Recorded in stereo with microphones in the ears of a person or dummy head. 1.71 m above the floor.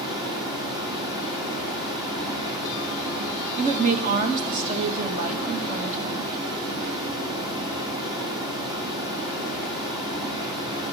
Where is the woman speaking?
45° right (ahead or behind), 1.6 m.